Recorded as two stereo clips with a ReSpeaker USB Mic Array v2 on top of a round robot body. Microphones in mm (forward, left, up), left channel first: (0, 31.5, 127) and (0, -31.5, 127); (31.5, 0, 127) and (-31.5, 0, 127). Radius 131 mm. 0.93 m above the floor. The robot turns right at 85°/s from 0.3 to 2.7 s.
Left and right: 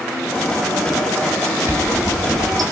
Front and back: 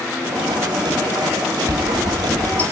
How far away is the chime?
About 6 m.